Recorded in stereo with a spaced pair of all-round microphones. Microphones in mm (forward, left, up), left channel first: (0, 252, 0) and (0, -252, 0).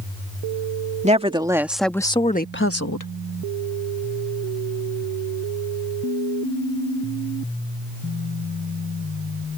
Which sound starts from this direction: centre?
A woman speaking, at 1.0 s.